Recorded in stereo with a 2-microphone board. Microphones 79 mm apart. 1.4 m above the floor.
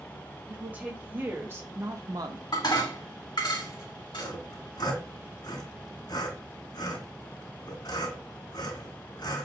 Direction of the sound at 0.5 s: 20° right (ahead or behind).